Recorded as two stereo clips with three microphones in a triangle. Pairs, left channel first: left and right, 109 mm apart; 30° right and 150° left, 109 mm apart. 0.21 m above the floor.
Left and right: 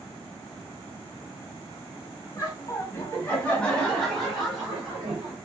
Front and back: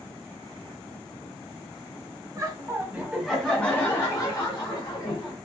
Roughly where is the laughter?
Behind left.